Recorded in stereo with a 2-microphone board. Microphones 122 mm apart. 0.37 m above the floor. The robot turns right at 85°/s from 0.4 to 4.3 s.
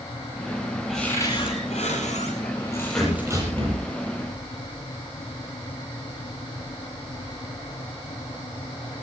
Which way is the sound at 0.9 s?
5° right.